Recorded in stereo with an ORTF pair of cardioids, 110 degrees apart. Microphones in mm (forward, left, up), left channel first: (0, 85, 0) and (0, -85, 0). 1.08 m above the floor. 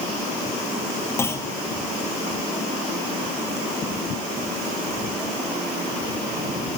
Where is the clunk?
15° left, 1.1 m.